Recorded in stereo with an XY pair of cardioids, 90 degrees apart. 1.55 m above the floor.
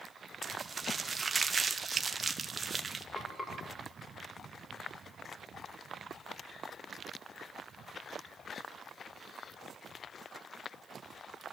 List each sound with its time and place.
0.4 s crumpling: 30° right, 1.6 m
3.1 s frying: 15° left, 7 m